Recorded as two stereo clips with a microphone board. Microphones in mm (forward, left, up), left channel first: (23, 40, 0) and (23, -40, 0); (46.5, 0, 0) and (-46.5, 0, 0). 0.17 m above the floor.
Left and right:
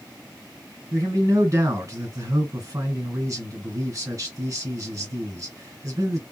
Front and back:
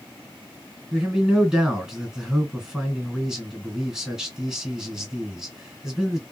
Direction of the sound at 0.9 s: 100° right.